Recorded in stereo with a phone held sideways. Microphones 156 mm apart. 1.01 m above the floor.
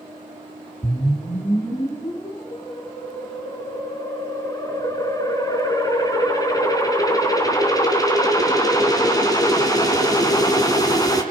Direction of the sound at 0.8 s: 25° left (ahead or behind).